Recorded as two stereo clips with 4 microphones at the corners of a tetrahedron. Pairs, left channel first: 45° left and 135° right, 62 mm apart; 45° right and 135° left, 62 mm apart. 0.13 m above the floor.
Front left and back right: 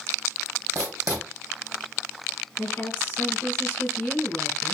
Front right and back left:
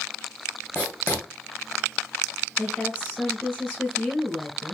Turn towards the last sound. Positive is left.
turn(degrees=70)